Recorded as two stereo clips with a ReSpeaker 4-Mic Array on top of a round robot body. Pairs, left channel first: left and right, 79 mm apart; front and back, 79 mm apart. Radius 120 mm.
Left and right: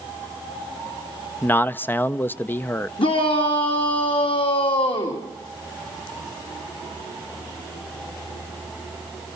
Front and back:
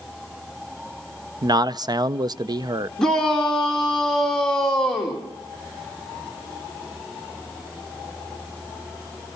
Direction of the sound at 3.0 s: 85° left.